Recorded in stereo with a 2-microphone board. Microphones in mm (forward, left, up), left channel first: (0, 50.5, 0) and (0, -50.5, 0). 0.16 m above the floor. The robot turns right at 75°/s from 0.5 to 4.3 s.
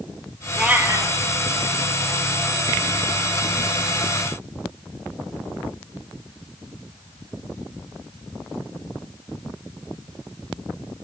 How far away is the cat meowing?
About 1.2 m.